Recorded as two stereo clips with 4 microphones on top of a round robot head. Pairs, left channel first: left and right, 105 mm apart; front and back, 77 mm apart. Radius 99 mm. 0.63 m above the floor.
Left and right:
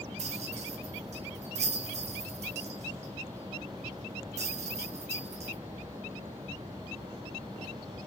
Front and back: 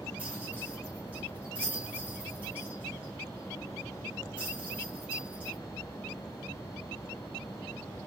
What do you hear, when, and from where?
0.2 s a rattle: 105° right, 0.7 m